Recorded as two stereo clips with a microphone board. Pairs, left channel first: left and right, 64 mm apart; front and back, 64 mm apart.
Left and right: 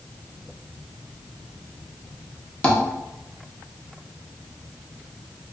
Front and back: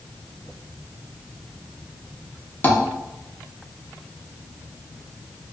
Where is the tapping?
30° left, 0.6 m.